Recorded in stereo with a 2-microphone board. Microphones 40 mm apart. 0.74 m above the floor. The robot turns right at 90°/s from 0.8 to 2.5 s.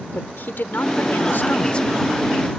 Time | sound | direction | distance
0.1 | a woman speaking | 65° left | ?